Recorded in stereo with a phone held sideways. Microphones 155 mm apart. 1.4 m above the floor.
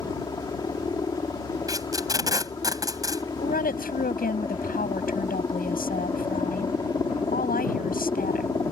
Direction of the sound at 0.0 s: 25° left (ahead or behind).